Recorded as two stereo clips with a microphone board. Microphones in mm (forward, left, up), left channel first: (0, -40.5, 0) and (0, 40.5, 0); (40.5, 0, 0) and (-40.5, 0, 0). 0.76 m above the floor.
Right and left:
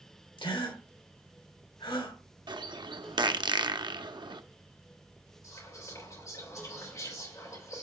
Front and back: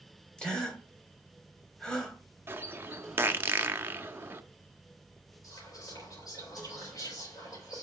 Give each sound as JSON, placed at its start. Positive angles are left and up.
{"t": 0.4, "sound": "a gasp", "azimuth_deg": -80, "distance_m": 2.5}
{"t": 2.5, "sound": "a bird", "azimuth_deg": 115, "distance_m": 0.6}
{"t": 5.4, "sound": "whispering", "azimuth_deg": -40, "distance_m": 4.5}